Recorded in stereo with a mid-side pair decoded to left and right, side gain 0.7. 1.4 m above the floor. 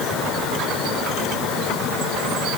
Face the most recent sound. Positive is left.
No sound to turn to.